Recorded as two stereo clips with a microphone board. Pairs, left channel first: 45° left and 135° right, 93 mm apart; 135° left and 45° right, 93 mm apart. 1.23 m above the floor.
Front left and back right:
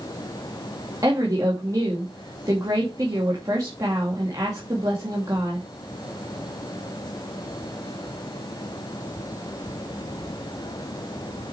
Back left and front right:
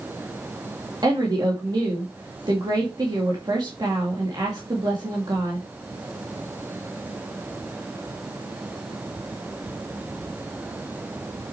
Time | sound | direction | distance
1.0 | a woman speaking | 85° right | 2.5 m